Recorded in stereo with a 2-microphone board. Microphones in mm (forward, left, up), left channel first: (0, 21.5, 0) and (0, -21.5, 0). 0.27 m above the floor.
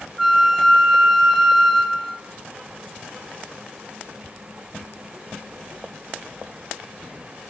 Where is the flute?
Centre (ahead or behind), 1.1 m.